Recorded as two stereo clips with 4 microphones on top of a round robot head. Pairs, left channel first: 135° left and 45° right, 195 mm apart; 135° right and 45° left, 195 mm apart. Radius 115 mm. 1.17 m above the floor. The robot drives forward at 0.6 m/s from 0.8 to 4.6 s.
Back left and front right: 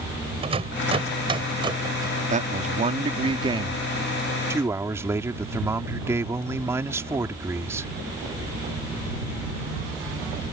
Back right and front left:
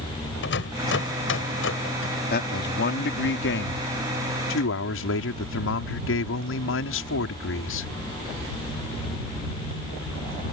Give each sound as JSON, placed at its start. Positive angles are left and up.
{"t": 0.4, "sound": "a rattle", "azimuth_deg": -105}
{"t": 2.3, "sound": "a man speaking", "azimuth_deg": -95}